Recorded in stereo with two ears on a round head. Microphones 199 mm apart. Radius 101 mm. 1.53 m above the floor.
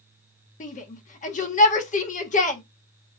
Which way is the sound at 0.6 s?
35° left (ahead or behind).